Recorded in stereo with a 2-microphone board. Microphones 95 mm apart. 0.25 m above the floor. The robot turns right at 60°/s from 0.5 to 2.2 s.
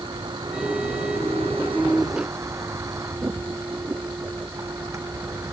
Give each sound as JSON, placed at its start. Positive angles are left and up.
{"t": 0.0, "sound": "a vehicle", "azimuth_deg": -130}